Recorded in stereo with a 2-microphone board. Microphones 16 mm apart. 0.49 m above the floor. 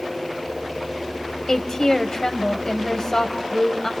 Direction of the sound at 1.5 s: 45° left (ahead or behind).